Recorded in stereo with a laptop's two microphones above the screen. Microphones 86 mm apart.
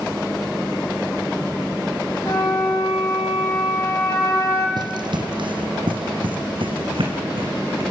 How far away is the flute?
About 9.5 m.